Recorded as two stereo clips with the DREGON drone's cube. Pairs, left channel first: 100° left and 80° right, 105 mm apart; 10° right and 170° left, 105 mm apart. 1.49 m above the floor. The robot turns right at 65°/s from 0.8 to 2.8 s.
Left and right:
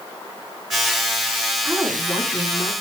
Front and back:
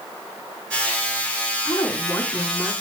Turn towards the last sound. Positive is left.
turn(degrees=85)